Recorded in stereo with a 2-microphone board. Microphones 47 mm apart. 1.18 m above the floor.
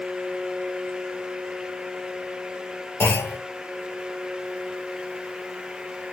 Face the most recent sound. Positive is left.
turn(degrees=60)  # may be behind; listen again after turning